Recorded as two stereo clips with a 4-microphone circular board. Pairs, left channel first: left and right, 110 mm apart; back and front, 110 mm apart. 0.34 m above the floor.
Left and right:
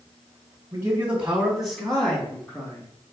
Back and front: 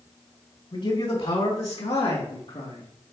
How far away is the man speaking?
About 3 m.